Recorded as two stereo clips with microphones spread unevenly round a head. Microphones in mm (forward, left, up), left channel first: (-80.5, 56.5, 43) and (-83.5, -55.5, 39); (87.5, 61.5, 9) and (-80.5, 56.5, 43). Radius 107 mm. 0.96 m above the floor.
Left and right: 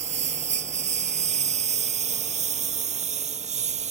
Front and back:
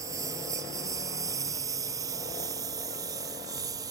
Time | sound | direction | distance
0.0 | a lawn mower | 105° right | ?